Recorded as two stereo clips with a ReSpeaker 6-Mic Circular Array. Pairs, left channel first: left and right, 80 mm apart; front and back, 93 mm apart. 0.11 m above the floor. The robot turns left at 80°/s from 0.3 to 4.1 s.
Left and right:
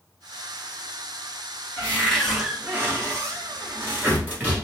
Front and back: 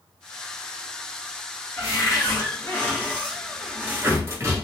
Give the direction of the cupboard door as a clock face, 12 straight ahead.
11 o'clock.